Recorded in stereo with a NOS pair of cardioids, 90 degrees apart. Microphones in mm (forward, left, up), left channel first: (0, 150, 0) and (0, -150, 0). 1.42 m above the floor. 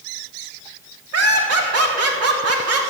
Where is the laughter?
55° right, 3.5 m.